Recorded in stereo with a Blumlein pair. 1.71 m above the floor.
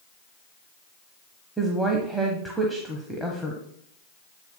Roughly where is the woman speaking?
Ahead.